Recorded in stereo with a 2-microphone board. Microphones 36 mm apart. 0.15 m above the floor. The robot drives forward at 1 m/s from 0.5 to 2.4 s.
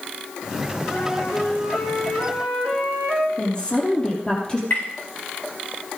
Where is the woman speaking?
25° left (ahead or behind), 5 m.